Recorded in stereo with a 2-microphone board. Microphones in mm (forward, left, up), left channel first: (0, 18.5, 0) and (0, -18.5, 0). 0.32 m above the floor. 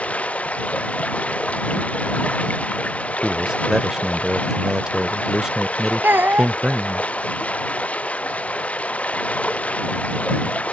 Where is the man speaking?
20° right (ahead or behind).